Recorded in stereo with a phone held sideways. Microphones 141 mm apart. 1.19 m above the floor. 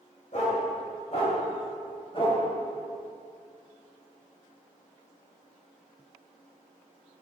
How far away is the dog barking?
About 2.5 m.